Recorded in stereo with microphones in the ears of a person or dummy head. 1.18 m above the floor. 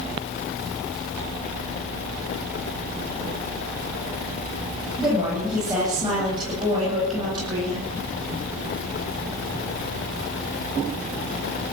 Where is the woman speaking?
25° right (ahead or behind), 9 m; by 7.9 s 30° right (ahead or behind), 10 m.